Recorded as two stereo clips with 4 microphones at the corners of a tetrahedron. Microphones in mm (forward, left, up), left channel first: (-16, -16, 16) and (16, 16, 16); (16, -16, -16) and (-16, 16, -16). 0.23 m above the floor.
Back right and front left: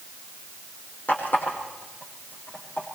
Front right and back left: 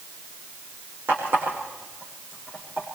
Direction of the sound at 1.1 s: 175° left.